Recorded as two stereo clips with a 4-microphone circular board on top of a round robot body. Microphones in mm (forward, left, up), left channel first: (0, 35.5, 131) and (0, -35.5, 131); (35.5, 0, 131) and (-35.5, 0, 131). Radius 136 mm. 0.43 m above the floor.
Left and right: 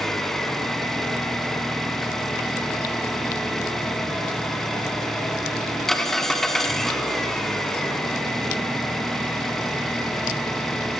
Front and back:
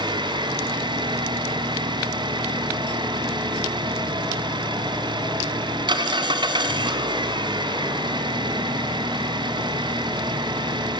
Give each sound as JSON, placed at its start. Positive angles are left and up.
{"t": 0.0, "sound": "an engine running", "azimuth_deg": 175, "distance_m": 2.5}